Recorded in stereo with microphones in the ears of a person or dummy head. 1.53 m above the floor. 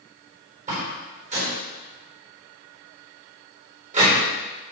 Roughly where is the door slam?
Right.